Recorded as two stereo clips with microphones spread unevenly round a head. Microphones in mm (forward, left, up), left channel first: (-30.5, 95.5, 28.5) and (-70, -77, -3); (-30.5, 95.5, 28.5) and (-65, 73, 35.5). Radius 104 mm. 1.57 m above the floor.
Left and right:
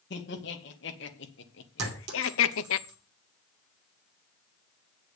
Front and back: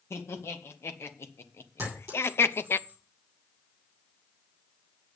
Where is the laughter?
35° left, 2.5 m; by 2.8 s 55° left, 0.7 m.